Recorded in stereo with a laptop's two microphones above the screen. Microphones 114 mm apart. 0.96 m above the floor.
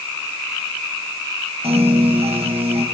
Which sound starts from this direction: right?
A piano, at 1.6 s.